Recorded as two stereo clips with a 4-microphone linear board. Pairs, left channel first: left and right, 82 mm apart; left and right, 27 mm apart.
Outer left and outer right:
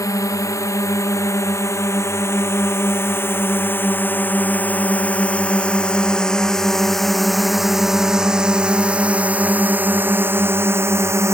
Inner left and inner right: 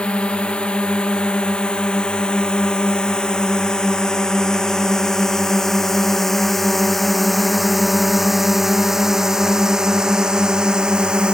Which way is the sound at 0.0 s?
40° left (ahead or behind).